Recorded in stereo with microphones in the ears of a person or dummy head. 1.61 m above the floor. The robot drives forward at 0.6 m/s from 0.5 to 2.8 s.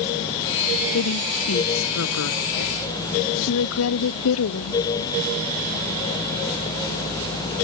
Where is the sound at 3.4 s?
80° left.